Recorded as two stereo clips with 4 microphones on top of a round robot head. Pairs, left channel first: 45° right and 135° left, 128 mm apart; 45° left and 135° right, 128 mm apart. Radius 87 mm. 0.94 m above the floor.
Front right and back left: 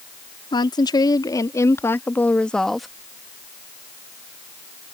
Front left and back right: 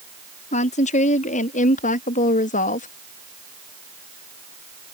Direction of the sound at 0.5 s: 15° left.